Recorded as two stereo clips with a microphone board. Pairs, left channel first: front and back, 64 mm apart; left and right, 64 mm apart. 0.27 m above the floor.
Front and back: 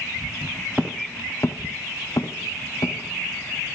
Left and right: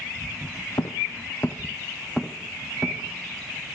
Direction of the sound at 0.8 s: 85° left.